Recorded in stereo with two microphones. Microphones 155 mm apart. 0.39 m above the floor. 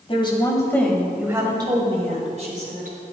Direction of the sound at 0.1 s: 35° left (ahead or behind).